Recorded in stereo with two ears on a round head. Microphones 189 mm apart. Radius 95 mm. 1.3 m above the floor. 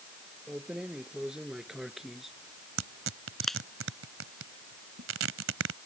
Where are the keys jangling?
5° right (ahead or behind); by 3.6 s centre (ahead or behind).